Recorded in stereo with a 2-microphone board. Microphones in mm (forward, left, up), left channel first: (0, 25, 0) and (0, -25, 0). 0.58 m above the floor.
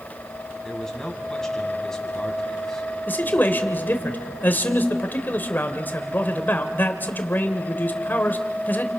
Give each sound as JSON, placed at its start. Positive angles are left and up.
{"t": 0.6, "sound": "a man speaking", "side_deg": 10, "distance_m": 4.0}
{"t": 3.1, "sound": "a man speaking", "side_deg": 40, "distance_m": 2.5}